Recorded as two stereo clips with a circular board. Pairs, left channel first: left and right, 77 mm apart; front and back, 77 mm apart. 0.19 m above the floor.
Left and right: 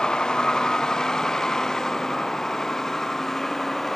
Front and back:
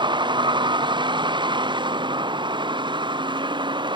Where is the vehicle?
170° left; by 4.0 s 175° left.